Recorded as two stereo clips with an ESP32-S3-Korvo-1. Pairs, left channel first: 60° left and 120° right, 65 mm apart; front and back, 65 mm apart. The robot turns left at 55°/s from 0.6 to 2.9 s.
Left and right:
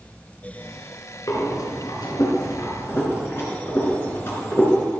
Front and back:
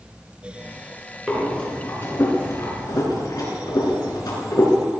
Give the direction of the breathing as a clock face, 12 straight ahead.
9 o'clock.